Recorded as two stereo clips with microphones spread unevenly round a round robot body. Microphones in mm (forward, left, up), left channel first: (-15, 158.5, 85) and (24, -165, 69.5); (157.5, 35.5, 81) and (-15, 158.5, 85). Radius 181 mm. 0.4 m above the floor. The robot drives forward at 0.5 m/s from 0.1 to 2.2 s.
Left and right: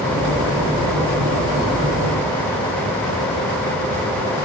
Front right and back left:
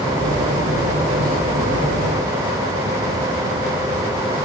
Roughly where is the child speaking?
I don't hear a child speaking.